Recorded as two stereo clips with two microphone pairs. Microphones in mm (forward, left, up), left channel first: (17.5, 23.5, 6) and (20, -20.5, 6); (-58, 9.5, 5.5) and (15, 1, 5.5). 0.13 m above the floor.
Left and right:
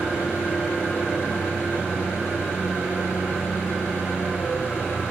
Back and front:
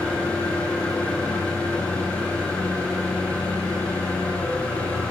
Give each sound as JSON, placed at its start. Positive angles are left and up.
{"t": 0.0, "sound": "an engine running", "azimuth_deg": 105, "distance_m": 4.0}